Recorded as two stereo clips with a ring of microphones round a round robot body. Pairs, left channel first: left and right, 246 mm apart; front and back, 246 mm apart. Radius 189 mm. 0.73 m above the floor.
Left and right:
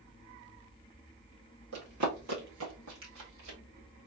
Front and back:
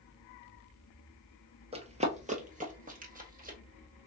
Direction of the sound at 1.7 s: 120° right.